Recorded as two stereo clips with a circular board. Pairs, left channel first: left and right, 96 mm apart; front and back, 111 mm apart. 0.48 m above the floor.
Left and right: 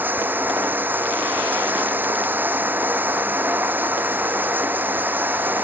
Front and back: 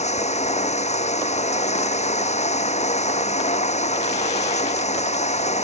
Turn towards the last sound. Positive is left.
turn(degrees=-20)